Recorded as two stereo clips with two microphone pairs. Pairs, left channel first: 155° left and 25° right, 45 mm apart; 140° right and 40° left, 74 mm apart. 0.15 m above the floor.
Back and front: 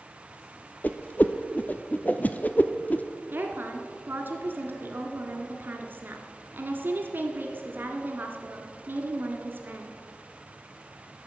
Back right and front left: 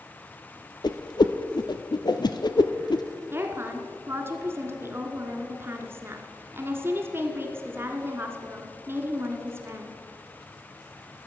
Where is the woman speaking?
5° right, 1.7 m.